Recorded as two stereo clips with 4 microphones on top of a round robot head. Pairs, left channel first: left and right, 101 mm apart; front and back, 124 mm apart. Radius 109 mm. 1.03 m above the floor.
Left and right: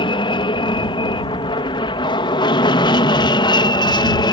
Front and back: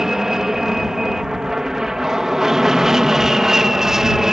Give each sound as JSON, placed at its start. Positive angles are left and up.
{"t": 0.0, "sound": "an aircraft", "azimuth_deg": 95}